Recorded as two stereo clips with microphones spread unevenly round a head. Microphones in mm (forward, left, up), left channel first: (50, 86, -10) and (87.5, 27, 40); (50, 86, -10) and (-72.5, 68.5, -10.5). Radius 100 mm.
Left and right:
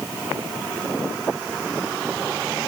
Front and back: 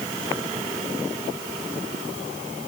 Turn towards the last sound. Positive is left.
No sound to turn to.